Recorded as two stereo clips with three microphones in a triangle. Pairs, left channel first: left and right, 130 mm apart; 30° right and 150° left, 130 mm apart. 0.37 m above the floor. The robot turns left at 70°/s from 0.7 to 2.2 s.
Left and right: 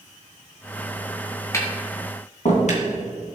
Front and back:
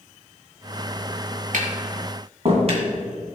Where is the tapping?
160° left, 2.5 m; by 2.8 s 110° left, 2.5 m.